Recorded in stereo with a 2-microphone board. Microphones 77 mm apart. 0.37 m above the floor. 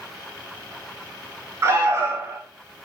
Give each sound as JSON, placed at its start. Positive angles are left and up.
{"t": 1.6, "sound": "an alarm", "side_deg": -25, "distance_m": 3.5}